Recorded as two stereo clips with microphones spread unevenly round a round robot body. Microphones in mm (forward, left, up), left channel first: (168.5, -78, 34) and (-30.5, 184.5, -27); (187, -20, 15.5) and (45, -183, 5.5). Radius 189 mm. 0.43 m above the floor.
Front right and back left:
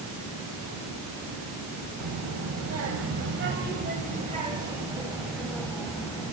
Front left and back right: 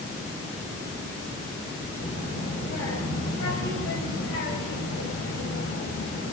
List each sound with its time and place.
2.0 s a child speaking: 105° left, 2.0 m; by 6.3 s 30° left, 2 m